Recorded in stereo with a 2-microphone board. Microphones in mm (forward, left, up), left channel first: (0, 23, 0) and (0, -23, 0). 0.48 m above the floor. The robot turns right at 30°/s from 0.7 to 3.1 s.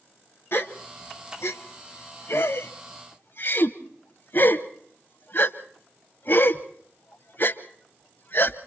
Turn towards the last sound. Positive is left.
turn(degrees=55)  # may be behind; listen again after turning